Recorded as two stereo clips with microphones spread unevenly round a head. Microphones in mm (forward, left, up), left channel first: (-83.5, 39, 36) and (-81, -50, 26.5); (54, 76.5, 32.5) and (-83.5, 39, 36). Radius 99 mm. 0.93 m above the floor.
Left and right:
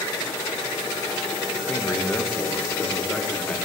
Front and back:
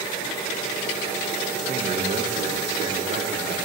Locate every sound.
1.7 s a man speaking: 165° left, 1.0 m; by 3.6 s 170° left, 2.0 m